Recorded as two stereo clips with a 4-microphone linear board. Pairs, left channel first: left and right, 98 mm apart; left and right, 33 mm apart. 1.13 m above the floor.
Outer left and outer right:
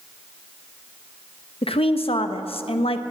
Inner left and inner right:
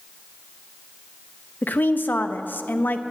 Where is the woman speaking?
75° left (ahead or behind), 0.9 m.